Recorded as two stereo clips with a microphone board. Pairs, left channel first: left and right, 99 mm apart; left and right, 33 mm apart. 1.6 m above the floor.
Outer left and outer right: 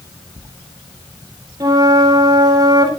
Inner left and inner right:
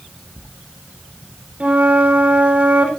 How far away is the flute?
About 4.5 m.